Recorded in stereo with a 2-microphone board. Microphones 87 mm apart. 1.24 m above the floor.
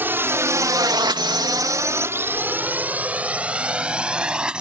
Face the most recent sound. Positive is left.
turn(degrees=-10)  # may be behind; listen again after turning